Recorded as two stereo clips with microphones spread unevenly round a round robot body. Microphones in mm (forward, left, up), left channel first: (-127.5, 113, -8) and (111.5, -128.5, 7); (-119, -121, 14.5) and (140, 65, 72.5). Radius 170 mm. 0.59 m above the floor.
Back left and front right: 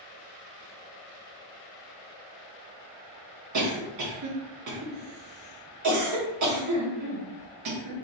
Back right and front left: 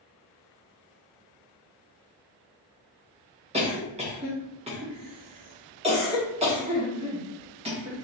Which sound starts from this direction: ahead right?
A cough, at 3.5 s.